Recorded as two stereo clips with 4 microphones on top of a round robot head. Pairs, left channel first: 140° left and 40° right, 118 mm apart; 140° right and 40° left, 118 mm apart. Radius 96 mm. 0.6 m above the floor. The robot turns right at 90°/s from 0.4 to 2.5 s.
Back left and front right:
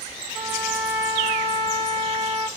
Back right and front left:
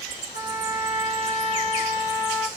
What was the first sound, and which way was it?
A trumpet, 175° right.